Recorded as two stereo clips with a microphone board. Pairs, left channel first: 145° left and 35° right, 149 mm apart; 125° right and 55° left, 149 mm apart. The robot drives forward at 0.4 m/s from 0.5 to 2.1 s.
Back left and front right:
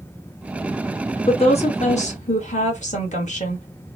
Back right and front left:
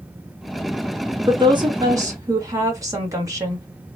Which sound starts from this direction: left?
A woman speaking, at 1.3 s.